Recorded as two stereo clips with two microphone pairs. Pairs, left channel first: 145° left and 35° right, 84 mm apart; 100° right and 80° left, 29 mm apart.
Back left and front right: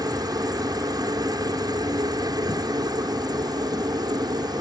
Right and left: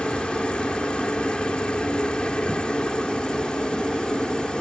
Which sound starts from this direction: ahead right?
A helicopter, at 0.0 s.